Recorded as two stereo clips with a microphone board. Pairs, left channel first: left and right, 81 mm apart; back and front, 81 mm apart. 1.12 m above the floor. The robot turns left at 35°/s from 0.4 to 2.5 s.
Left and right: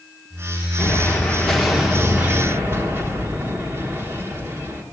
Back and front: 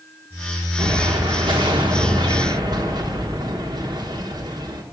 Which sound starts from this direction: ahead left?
An explosion, at 0.8 s.